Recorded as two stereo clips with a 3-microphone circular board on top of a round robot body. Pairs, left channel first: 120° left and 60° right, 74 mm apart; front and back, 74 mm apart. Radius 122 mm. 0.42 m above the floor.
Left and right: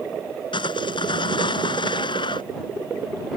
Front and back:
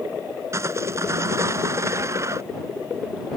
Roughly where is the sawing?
Behind left.